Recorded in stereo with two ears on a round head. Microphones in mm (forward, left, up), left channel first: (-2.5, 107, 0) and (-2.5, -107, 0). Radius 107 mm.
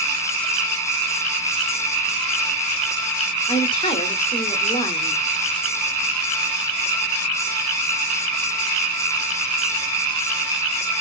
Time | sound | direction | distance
3.5 | a woman speaking | 20° left (ahead or behind) | 1.4 m